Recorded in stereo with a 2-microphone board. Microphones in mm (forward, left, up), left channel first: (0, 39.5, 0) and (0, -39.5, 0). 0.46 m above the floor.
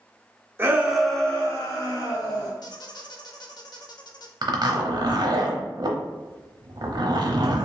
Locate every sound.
0.6 s a shout: 25° right (ahead or behind), 0.8 m; by 2.5 s 60° left (ahead or behind), 1.4 m
2.6 s a squeak: 55° left (ahead or behind), 0.6 m
4.4 s a zipper: 60° right (ahead or behind), 0.8 m